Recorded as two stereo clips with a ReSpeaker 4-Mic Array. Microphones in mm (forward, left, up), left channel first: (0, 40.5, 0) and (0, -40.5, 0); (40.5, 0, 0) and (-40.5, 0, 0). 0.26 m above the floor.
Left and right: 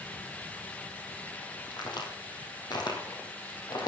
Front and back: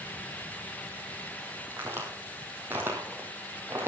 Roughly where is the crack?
Behind left.